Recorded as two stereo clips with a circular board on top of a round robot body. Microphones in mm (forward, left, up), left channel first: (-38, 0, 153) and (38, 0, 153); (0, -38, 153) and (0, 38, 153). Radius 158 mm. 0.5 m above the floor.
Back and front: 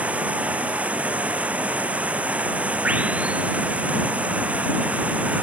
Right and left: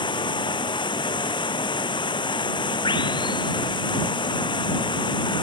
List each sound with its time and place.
0.0 s running water: 75° right